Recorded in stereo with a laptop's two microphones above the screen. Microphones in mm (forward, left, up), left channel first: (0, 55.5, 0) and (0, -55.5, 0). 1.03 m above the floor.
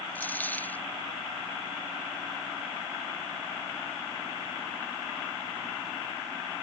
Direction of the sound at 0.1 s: 15° left (ahead or behind).